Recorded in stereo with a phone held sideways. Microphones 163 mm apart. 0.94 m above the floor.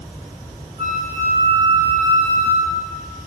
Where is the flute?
45° right (ahead or behind), 9.5 m.